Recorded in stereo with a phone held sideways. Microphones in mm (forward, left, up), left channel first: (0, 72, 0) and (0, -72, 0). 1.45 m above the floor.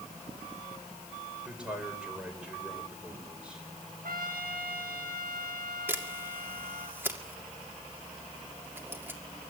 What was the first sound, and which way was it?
A man speaking, 5° right (ahead or behind).